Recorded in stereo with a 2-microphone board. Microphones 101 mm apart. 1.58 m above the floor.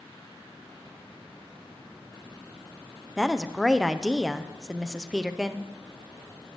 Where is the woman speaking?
5° right (ahead or behind), 0.9 m.